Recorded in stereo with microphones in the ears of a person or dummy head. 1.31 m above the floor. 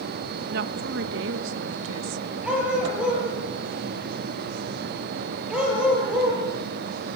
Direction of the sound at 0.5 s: 65° right (ahead or behind).